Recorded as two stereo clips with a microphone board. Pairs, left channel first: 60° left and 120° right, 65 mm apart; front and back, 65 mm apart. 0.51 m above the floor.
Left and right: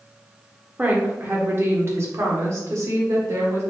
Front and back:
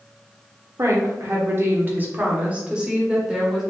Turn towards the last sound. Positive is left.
turn(degrees=-95)